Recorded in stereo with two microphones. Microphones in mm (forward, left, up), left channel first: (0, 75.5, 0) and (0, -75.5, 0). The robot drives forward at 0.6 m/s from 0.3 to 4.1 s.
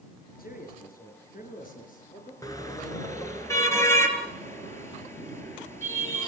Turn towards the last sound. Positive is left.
turn(degrees=15)  # may be behind; listen again after turning